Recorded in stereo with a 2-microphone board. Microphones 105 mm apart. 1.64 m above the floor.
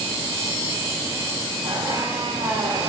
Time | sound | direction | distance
1.6 | a squeak | 55° right (ahead or behind) | 2.5 m